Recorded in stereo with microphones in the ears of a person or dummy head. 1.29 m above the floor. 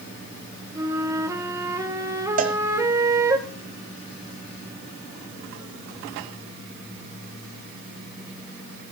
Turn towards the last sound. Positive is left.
turn(degrees=-45)  # may be behind; listen again after turning